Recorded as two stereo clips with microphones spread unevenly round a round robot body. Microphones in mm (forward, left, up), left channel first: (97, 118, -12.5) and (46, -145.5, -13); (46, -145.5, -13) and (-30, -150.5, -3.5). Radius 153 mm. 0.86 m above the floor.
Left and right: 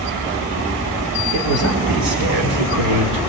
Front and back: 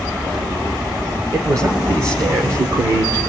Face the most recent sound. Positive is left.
turn(degrees=-140)